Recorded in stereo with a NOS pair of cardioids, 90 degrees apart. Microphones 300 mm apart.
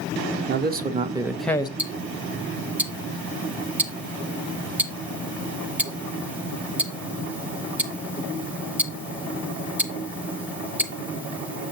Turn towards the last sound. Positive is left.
turn(degrees=-5)